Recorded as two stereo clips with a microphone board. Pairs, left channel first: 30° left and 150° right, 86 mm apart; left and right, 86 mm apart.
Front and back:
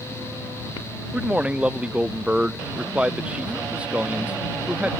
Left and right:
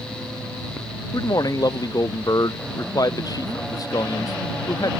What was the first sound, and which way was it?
A man speaking, 135° left.